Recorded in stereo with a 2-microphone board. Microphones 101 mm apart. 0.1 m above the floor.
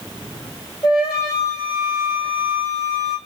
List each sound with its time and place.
0.8 s a flute: 35° left (ahead or behind), 3 m